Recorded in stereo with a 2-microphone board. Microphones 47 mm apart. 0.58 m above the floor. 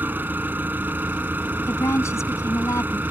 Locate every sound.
0.0 s an engine running: 40° right (ahead or behind)
1.7 s a woman speaking: 80° left